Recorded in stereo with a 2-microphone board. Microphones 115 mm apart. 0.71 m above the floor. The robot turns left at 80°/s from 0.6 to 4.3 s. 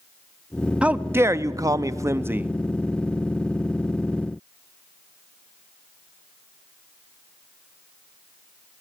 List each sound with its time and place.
0.8 s a man speaking: 20° right, 0.6 m; by 2.5 s 150° right, 0.6 m